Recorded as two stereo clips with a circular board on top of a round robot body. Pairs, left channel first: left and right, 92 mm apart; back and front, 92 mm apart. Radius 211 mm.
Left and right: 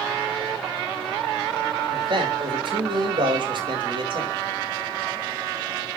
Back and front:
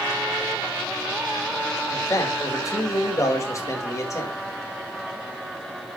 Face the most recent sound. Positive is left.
turn(degrees=-125)